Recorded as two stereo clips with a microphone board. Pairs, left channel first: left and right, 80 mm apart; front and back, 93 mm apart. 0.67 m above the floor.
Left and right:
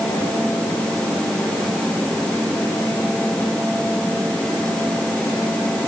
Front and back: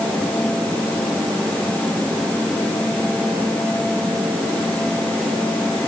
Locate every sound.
Only background noise.